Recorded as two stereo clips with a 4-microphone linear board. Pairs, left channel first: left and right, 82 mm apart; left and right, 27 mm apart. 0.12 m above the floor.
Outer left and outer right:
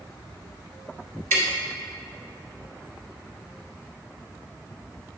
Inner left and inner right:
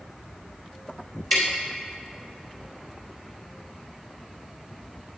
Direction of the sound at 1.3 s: 25° left (ahead or behind).